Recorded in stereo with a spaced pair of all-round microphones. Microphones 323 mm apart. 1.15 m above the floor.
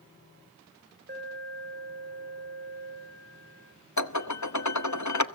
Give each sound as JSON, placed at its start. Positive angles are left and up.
{"t": 1.1, "sound": "an alarm", "side_deg": -35, "distance_m": 7.5}
{"t": 4.0, "sound": "dishes clattering", "side_deg": 60, "distance_m": 1.1}